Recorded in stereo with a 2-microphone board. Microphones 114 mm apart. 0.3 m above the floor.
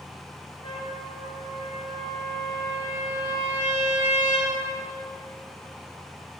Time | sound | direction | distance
0.6 | a trumpet | 45° left (ahead or behind) | 4 m